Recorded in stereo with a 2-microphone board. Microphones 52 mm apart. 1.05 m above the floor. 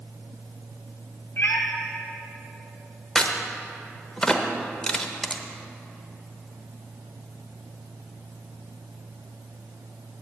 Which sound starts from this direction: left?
A cat meowing, at 1.4 s.